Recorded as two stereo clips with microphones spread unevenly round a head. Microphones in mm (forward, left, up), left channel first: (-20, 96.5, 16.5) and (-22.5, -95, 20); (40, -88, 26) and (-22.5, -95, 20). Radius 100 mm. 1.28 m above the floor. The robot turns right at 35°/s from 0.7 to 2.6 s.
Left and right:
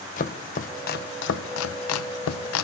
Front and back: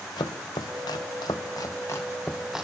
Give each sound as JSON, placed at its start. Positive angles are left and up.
{"t": 0.2, "sound": "chopping", "azimuth_deg": 35, "distance_m": 0.7}